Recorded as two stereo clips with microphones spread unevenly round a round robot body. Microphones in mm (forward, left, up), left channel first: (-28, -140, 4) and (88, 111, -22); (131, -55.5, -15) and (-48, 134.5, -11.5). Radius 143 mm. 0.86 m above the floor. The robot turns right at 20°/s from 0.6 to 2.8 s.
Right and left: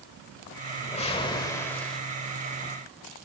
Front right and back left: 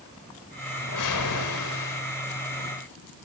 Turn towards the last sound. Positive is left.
turn(degrees=-10)